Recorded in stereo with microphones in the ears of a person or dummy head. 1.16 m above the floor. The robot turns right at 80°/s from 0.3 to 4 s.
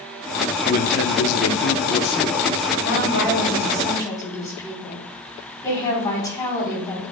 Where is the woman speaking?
65° left, 4.5 m; by 7.0 s 160° left, 4.5 m.